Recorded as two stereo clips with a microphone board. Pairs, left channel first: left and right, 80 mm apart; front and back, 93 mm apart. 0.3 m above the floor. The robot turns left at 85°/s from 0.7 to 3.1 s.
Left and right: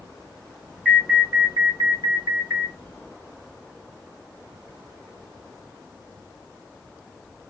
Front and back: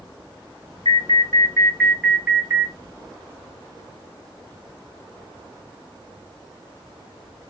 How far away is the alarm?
About 1.7 m.